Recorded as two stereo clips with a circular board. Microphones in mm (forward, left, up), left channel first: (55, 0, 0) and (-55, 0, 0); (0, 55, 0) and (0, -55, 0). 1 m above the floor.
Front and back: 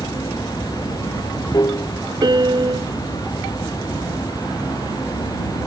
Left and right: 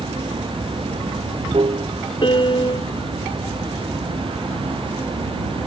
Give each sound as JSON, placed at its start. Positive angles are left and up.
{"t": 0.0, "sound": "running water", "azimuth_deg": -55}
{"t": 2.2, "sound": "a piano", "azimuth_deg": 130}